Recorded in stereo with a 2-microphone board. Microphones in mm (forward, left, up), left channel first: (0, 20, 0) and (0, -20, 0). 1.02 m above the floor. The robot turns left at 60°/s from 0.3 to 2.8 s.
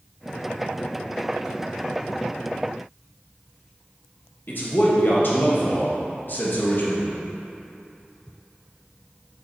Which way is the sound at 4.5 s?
55° left (ahead or behind).